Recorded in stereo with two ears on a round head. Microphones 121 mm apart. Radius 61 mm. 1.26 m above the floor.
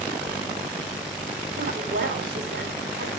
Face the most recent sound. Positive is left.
turn(degrees=-70)  # may be behind; listen again after turning